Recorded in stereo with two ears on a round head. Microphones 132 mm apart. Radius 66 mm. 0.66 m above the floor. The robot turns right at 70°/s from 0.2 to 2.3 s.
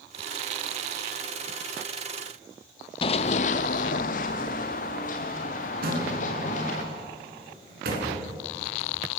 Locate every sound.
3.0 s running footsteps: 35° left (ahead or behind), 0.8 m; by 6.8 s 55° left (ahead or behind), 4 m
5.8 s a door slam: 70° right (ahead or behind), 4.5 m